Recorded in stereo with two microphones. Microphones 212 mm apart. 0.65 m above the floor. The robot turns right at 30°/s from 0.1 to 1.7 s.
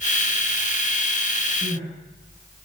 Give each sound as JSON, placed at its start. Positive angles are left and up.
{"t": 1.6, "sound": "crying", "side_deg": -25, "distance_m": 6.5}